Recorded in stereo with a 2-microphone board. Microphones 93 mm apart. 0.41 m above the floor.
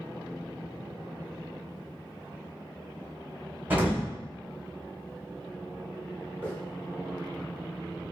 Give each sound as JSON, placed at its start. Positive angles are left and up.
{"t": 3.7, "sound": "an explosion", "side_deg": -20, "distance_m": 1.1}
{"t": 6.4, "sound": "a hiss", "side_deg": -25, "distance_m": 1.4}